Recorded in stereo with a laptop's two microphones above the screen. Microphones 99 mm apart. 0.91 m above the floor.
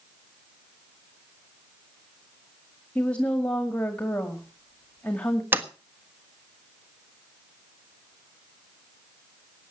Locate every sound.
3.0 s a woman speaking: 10° left (ahead or behind), 1.9 m
5.5 s a sliding door: 20° right (ahead or behind), 1.5 m